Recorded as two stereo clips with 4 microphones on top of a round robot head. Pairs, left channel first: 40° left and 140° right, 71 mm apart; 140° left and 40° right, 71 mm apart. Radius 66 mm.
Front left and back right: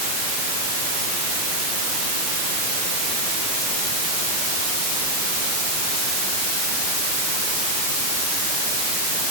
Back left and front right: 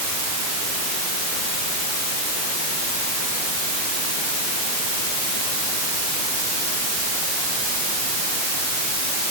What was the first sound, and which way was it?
Only background noise.